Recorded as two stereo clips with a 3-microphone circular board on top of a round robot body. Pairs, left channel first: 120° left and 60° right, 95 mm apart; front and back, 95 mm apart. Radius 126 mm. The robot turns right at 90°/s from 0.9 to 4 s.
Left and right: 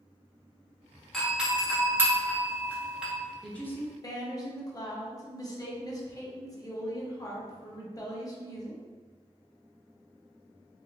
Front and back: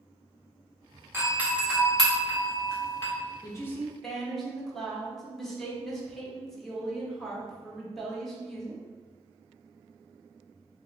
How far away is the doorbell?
About 1.4 m.